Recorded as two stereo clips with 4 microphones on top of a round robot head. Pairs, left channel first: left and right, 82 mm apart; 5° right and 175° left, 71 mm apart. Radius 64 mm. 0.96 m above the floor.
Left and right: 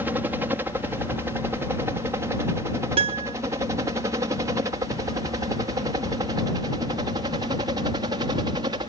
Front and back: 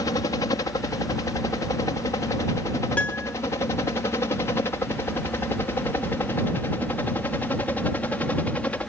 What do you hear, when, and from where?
0.0 s a helicopter: 25° right; by 8.9 s 75° right
3.0 s a piano: 80° right